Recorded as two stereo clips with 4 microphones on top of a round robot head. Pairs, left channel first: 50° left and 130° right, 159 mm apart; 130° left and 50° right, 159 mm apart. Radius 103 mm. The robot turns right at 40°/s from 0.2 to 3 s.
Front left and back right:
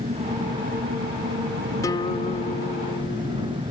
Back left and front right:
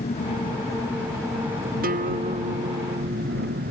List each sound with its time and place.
0.0 s an engine running: straight behind; by 3.7 s 70° right
1.8 s a guitar: 20° right; by 3.6 s 25° left